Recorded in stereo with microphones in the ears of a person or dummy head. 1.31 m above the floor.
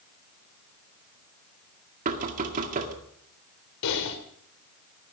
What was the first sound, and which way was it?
Knocking, 45° right (ahead or behind).